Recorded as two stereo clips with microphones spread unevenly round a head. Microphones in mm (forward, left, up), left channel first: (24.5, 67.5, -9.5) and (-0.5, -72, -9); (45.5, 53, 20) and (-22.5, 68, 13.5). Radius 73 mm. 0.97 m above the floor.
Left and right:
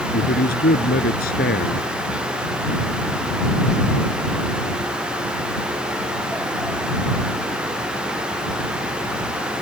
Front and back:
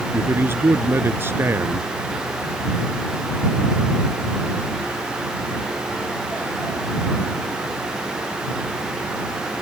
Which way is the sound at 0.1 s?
110° left.